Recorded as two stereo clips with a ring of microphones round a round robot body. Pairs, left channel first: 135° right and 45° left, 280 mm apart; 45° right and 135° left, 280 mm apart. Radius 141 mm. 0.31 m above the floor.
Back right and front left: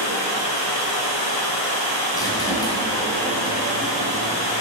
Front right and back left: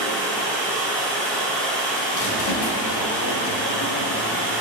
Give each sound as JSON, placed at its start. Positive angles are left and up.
{"t": 0.0, "sound": "running water", "azimuth_deg": -130, "distance_m": 4.5}
{"t": 2.1, "sound": "a squeak", "azimuth_deg": -60, "distance_m": 2.5}